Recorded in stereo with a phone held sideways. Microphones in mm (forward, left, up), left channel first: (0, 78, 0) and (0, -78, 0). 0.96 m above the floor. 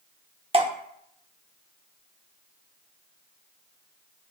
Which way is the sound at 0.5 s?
40° right (ahead or behind).